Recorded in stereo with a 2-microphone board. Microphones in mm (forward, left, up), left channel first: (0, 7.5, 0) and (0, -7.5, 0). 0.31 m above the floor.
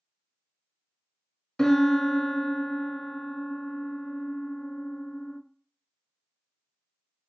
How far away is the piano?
About 0.5 m.